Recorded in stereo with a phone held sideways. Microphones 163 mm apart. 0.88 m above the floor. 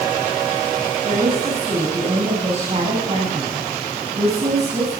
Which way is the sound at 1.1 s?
40° right (ahead or behind).